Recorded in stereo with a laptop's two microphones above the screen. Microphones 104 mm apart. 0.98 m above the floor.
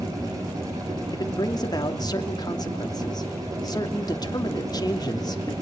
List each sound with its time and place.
0.0 s a machine running: 35° right (ahead or behind), 10 m
1.1 s a man speaking: 40° left (ahead or behind), 2.5 m